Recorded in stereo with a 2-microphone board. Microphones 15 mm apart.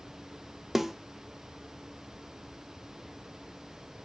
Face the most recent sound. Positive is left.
turn(degrees=-15)  # may be behind; listen again after turning